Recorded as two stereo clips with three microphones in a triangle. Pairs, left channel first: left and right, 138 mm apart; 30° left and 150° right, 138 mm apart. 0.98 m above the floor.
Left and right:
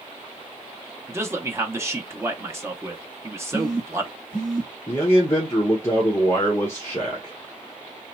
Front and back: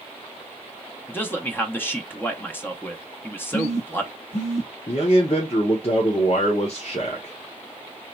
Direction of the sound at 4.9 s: 25° left.